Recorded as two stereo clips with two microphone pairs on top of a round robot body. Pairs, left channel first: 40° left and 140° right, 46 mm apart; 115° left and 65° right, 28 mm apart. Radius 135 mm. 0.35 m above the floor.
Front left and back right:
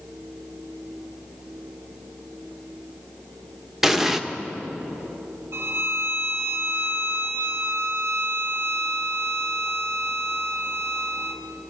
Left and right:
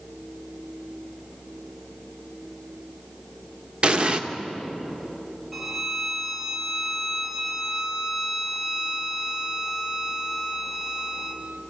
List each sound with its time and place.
3.8 s an explosion: 85° right, 1.5 m
5.5 s a violin: 145° right, 1.9 m